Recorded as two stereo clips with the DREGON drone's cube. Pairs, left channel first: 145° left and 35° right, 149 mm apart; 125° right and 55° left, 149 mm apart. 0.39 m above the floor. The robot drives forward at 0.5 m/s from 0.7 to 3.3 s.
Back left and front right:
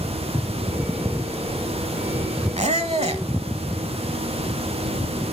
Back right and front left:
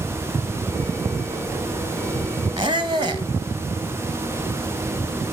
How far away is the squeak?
About 1.1 m.